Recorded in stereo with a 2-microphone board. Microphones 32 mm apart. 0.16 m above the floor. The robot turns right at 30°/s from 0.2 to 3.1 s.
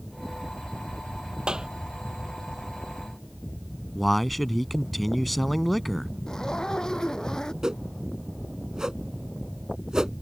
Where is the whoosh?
20° right (ahead or behind).